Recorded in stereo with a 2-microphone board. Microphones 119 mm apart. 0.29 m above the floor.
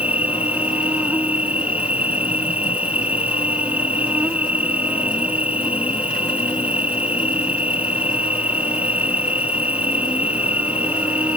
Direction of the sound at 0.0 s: 10° right (ahead or behind).